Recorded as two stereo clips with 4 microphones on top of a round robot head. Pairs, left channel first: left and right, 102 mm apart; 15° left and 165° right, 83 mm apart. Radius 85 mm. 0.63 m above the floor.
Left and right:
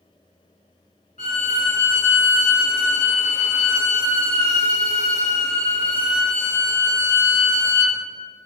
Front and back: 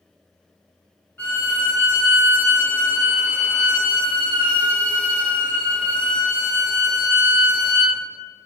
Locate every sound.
1.2 s a violin: 80° left, 1.4 m